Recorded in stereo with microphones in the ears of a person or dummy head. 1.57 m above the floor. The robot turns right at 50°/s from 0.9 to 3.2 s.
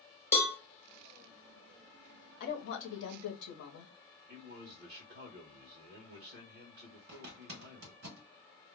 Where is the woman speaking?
65° left, 0.8 m; by 3.9 s 105° left, 0.8 m.